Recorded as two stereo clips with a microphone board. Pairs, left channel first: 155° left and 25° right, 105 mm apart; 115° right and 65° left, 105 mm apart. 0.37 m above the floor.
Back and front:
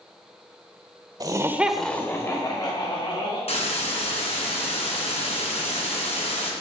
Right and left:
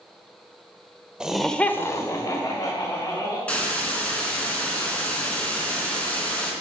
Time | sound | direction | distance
1.2 | laughter | 10° right | 1.2 m
3.5 | a hiss | 170° left | 3 m